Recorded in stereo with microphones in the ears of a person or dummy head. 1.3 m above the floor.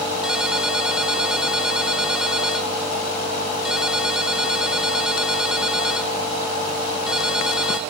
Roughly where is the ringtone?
Centre.